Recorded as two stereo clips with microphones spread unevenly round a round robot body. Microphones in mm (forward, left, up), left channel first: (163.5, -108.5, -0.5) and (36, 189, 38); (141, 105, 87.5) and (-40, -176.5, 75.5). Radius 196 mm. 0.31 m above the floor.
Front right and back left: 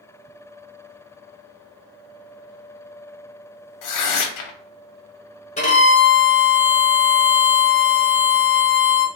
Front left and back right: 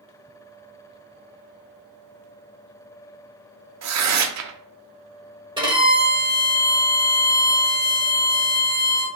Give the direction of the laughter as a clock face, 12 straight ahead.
No laughter in this recording.